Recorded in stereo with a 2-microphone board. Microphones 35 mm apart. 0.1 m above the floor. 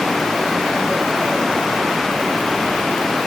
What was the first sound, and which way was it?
Only background noise.